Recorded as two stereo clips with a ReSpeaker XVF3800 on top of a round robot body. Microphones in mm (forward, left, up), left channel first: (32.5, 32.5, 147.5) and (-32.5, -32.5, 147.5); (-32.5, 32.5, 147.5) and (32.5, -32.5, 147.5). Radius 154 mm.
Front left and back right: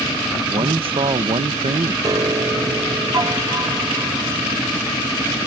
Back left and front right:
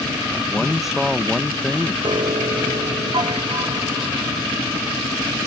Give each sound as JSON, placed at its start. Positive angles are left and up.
{"t": 0.5, "sound": "a man speaking", "azimuth_deg": -130}
{"t": 2.0, "sound": "a piano", "azimuth_deg": -85}